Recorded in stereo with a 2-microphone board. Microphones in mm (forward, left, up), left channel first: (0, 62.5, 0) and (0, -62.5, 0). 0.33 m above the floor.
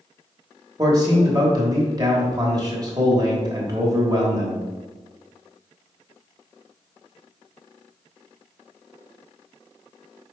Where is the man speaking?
30° right (ahead or behind), 1.1 m.